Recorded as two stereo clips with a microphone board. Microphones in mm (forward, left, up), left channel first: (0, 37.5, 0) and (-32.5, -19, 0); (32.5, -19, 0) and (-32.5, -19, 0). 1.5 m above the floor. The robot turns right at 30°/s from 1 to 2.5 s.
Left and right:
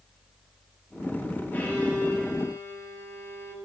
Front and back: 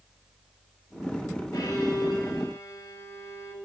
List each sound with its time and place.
1.5 s a violin: straight ahead, 2.5 m; by 3.5 s 25° left, 2.5 m